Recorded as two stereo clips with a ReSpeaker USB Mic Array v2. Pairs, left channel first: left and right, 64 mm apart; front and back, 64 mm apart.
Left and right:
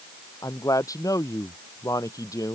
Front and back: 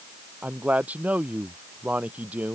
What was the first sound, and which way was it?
A man speaking, 115° left.